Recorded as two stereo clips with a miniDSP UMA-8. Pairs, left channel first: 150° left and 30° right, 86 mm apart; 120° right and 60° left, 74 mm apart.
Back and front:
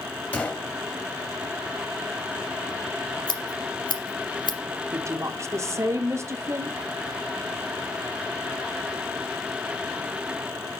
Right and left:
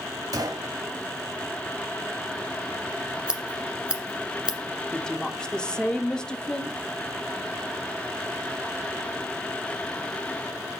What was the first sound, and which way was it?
A gunshot, 80° left.